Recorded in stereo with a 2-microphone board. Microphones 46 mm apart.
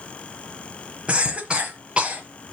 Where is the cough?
20° right (ahead or behind), 1.2 m.